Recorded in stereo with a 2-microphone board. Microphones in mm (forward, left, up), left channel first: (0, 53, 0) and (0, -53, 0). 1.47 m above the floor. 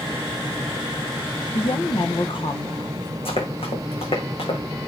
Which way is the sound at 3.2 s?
70° left (ahead or behind).